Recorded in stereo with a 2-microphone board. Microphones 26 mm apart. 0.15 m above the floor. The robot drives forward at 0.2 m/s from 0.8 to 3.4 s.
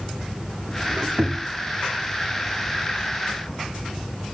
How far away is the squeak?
About 0.6 m.